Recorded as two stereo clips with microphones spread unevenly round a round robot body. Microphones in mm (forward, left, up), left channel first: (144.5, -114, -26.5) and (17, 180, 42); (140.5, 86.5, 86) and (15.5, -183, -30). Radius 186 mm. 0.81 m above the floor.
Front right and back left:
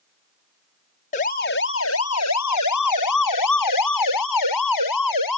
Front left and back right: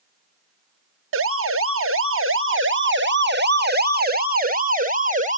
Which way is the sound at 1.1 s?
125° right.